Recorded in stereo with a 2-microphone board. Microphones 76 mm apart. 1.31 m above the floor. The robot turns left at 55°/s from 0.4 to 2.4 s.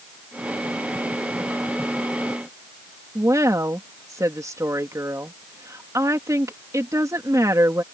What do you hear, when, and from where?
3.1 s a woman speaking: 45° right (ahead or behind)